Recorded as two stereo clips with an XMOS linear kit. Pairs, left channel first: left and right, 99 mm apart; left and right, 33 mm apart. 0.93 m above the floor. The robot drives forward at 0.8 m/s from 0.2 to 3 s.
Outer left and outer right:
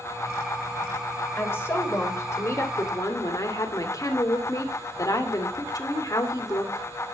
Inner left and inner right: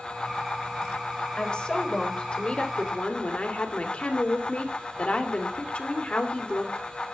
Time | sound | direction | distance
1.4 | a woman speaking | 25° left (ahead or behind) | 3.5 m